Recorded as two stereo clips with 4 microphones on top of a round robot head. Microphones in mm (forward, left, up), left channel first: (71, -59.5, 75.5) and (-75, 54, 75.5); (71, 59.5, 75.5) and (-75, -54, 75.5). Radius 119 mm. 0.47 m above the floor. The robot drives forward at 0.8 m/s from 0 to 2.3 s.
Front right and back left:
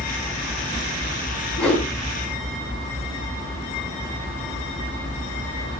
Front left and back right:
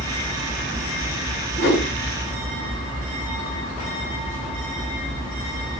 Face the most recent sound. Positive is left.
turn(degrees=55)